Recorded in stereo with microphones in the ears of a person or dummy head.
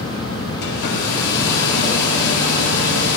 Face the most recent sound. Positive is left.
turn(degrees=65)  # may be behind; listen again after turning